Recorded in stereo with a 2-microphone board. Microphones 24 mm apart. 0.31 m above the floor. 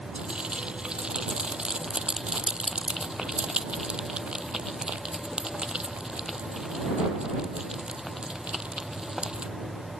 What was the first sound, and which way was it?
Frying, 35° right (ahead or behind).